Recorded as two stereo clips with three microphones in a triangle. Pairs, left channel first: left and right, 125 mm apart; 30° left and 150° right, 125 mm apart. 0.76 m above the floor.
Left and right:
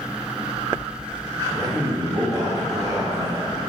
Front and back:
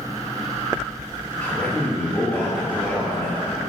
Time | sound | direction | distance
1.4 | a man speaking | 45° right | 1.4 m